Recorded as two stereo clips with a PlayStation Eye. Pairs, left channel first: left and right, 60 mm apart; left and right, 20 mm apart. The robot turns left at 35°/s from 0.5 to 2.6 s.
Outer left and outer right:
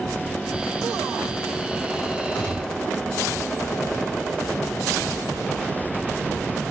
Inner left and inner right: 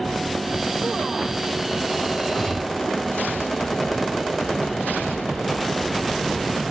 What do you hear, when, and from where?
2.3 s a gunshot: 25° left (ahead or behind), 1.2 m; by 2.8 s 15° left (ahead or behind), 1.2 m